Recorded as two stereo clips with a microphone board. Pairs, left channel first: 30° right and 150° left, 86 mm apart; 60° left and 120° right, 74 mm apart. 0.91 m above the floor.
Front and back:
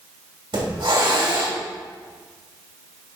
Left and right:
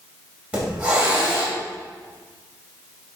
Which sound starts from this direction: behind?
A hiss, at 0.5 s.